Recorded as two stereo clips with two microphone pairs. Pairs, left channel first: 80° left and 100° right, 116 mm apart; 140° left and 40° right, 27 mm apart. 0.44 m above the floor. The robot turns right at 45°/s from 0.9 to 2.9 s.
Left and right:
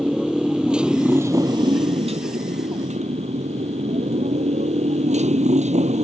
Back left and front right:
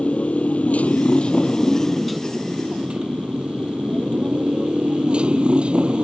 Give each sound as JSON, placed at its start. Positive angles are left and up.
{"t": 0.0, "sound": "a motorcycle", "azimuth_deg": 175}